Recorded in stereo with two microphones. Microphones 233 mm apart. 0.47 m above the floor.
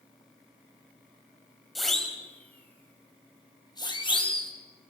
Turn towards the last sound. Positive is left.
turn(degrees=25)  # may be behind; listen again after turning